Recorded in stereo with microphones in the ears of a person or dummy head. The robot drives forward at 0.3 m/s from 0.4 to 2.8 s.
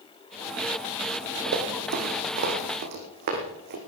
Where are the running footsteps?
45° right (ahead or behind), 2.5 m; by 3.8 s 50° right (ahead or behind), 3.5 m.